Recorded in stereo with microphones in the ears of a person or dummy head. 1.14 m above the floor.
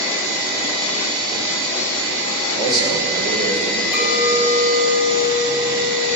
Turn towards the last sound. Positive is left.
turn(degrees=0)  # may be behind; listen again after turning